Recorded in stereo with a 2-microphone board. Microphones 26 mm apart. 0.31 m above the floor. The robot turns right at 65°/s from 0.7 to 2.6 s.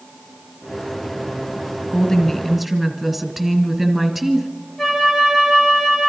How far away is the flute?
About 2.5 m.